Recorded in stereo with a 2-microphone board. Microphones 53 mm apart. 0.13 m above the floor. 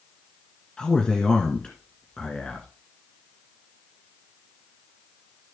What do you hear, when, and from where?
0.8 s a man speaking: 15° left (ahead or behind), 1.5 m